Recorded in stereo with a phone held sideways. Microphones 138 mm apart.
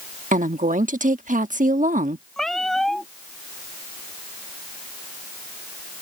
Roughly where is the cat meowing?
Centre.